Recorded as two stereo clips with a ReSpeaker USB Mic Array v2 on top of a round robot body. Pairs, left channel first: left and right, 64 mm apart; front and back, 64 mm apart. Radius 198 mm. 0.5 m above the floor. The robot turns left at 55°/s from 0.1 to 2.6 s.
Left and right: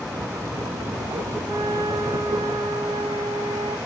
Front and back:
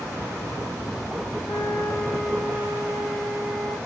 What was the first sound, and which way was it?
A flute, 40° right.